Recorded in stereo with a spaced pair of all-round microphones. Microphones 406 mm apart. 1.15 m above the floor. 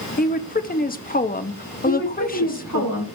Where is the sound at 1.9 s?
50° left (ahead or behind), 2 m.